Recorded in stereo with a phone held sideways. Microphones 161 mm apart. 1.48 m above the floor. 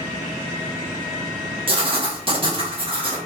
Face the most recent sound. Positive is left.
turn(degrees=-35)  # may be behind; listen again after turning